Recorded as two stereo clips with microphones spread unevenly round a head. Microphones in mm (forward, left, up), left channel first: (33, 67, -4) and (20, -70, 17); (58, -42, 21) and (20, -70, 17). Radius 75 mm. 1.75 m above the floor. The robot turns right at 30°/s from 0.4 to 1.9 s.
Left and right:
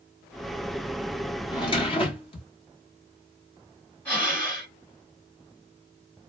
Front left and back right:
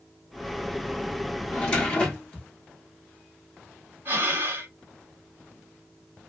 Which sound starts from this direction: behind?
Breathing, at 4.0 s.